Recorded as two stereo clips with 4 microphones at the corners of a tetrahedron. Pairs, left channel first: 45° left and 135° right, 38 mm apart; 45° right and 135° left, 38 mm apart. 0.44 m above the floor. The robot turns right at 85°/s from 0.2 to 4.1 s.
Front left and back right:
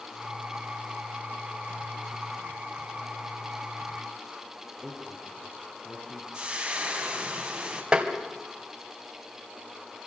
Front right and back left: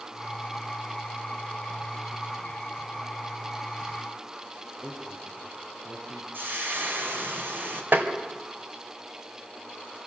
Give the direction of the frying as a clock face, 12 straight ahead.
7 o'clock.